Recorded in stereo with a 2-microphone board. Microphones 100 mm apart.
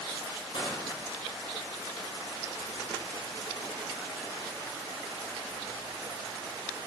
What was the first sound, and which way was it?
Crushing, 65° left (ahead or behind).